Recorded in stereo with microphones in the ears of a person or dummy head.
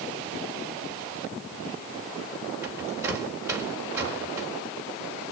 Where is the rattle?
15° right (ahead or behind), 4 m.